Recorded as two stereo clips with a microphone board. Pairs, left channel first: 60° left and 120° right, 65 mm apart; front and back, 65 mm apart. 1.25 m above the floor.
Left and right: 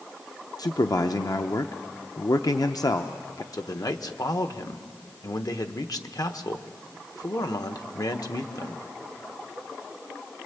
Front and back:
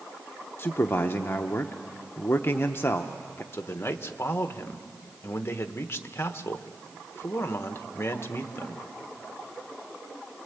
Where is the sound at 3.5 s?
50° left, 1.1 m.